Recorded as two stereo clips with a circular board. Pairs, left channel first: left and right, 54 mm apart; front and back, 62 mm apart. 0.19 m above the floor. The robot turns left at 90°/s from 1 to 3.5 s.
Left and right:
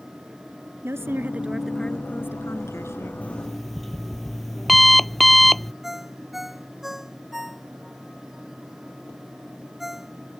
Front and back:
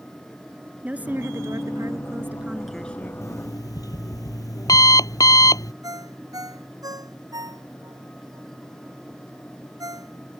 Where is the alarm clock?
30° left; by 5.7 s straight ahead.